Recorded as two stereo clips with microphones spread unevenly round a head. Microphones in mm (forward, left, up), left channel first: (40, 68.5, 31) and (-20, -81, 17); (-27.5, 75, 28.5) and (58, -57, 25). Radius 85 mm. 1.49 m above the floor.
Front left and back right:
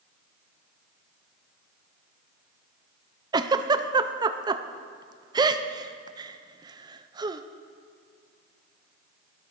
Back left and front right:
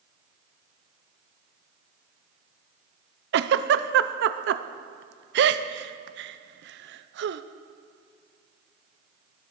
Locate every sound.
3.3 s a giggle: 45° right, 0.6 m